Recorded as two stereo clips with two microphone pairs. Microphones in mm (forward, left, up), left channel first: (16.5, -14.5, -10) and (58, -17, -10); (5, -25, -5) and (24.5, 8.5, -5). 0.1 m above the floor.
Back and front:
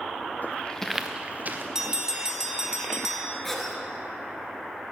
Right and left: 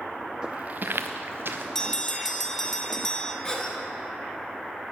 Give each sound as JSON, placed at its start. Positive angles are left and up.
{"t": 0.4, "sound": "footsteps", "azimuth_deg": 130, "distance_m": 0.7}
{"t": 1.8, "sound": "a bell", "azimuth_deg": -55, "distance_m": 0.8}
{"t": 3.4, "sound": "a cough", "azimuth_deg": -115, "distance_m": 1.3}